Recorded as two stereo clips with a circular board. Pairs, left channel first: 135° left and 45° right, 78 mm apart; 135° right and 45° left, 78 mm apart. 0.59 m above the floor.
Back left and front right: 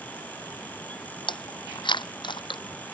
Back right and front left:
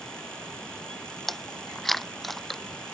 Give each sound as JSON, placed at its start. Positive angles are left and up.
{"t": 1.3, "sound": "chewing", "azimuth_deg": 140}